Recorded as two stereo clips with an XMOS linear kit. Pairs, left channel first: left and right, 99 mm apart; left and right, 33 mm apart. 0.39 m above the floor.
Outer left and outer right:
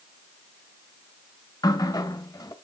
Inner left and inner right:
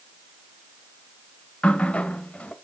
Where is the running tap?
40° left (ahead or behind), 1.0 m.